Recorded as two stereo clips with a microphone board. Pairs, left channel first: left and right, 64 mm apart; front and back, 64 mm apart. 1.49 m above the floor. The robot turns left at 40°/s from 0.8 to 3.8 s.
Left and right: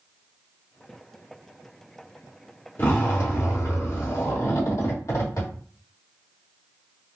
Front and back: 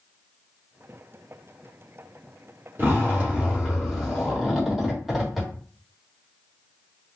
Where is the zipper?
135° left, 1.4 m; by 5.5 s 90° left, 1.4 m.